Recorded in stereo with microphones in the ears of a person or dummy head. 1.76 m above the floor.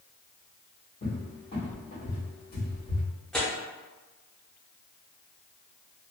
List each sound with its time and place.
1.0 s a cupboard door: 45° left (ahead or behind), 1.3 m
3.3 s tearing paper: 5° left (ahead or behind), 0.6 m